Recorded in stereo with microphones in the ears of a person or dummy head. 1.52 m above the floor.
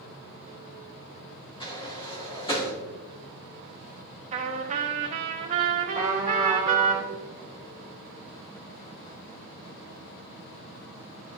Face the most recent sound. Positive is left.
turn(degrees=-15)  # may be behind; listen again after turning